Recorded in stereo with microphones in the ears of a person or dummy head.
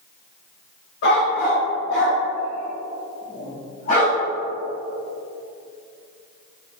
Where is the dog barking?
65° left (ahead or behind), 2.5 m; by 4.2 s 45° left (ahead or behind), 3.5 m.